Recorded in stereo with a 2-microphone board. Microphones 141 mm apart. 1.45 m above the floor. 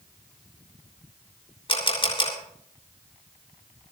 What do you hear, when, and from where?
1.7 s a camera shutter: 40° left (ahead or behind), 3.5 m